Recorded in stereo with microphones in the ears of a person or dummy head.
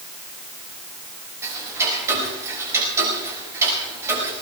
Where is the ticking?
15° right (ahead or behind), 5 m.